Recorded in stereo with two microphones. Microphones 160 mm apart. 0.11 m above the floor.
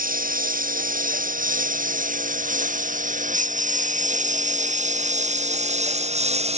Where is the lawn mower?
60° right (ahead or behind); by 6.6 s 40° right (ahead or behind).